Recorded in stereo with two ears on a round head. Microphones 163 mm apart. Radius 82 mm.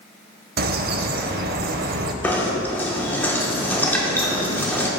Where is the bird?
55° right (ahead or behind), 0.5 m.